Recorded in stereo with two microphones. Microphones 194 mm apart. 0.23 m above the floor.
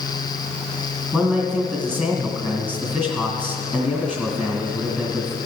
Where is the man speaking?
5° left (ahead or behind), 2 m.